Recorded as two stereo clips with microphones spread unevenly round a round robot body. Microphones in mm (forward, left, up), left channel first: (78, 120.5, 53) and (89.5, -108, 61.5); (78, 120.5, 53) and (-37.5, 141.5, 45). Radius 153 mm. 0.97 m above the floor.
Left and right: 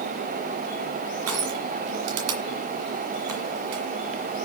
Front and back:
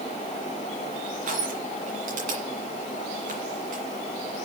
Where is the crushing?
130° right, 1.8 m.